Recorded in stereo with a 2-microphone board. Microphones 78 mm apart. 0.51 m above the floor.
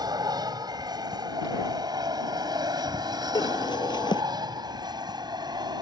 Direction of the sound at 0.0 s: 60° right (ahead or behind).